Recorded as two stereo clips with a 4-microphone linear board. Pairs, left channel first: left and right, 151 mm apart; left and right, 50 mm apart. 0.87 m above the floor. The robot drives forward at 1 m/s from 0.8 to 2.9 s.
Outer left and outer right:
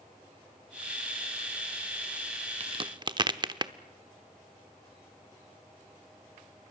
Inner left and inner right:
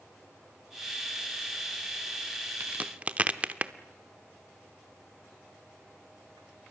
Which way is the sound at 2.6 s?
45° right (ahead or behind).